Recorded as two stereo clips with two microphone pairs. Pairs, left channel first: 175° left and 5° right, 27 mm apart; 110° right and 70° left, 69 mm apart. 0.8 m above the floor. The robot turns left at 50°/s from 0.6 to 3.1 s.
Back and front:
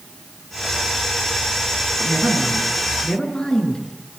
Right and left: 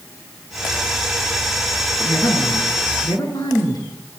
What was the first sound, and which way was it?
A woman speaking, 70° right.